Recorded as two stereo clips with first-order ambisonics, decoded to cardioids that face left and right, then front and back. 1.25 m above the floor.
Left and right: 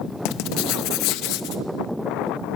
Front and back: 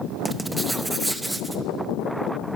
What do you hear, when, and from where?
0.2 s writing: 95° left, 0.7 m